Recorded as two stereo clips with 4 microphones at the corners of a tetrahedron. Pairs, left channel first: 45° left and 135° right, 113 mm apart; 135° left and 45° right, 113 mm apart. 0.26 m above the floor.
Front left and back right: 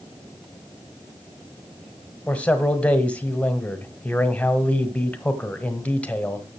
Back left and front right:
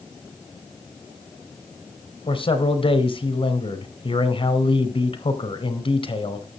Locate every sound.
2.3 s a man speaking: 120° left, 1.6 m